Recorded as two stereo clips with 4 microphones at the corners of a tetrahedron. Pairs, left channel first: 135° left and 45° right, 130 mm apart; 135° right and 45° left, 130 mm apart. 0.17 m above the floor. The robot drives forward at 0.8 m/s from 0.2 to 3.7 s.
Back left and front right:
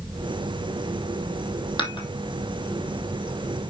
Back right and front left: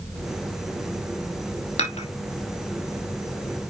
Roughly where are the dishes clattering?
Behind.